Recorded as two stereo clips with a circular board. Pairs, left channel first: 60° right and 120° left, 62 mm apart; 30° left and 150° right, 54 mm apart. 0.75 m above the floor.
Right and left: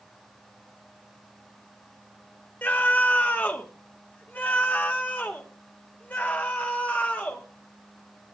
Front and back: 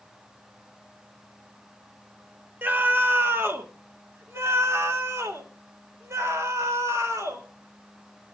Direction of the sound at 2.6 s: 110° right.